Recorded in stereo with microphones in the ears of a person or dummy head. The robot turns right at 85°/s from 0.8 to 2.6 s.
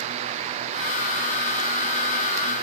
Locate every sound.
Only background noise.